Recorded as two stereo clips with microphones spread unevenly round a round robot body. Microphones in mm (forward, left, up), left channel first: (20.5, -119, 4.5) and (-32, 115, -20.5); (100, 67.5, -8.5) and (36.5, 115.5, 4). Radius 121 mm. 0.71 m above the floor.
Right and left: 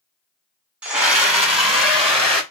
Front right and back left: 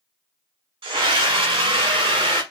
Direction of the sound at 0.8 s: 175° right.